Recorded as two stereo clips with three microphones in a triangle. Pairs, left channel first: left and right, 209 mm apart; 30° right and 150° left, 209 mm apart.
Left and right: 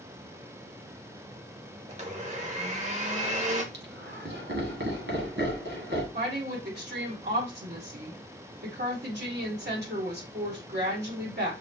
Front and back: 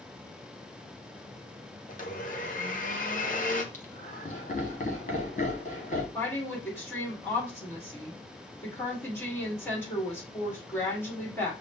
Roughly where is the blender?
Ahead right.